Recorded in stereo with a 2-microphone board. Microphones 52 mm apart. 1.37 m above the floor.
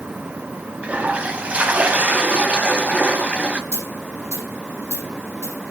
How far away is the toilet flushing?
About 1.4 m.